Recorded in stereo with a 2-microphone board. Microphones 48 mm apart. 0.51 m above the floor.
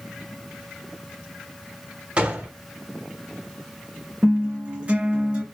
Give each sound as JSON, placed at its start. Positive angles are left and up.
{"t": 2.2, "sound": "a gunshot", "side_deg": -30, "distance_m": 0.9}
{"t": 4.2, "sound": "a guitar", "side_deg": -30, "distance_m": 2.5}